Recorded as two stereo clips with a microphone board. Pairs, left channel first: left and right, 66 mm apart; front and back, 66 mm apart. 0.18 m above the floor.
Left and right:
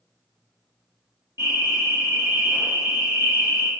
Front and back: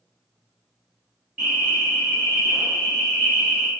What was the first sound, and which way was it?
An alarm, 105° right.